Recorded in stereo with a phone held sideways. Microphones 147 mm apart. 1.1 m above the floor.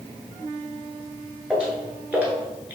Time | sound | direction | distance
1.5 | footsteps | 5° right (ahead or behind) | 1.1 m